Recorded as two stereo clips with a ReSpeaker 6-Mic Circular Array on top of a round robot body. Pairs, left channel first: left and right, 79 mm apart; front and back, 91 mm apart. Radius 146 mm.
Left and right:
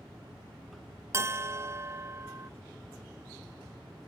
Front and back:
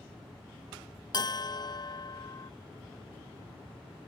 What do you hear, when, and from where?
1.1 s a bell: 40° right